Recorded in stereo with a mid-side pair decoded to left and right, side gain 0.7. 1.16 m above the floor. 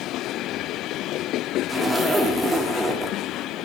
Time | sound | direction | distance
1.7 | a zipper | 5° right | 1.8 m